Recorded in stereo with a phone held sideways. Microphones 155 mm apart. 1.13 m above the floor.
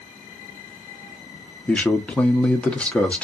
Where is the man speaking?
10° left (ahead or behind), 0.8 m.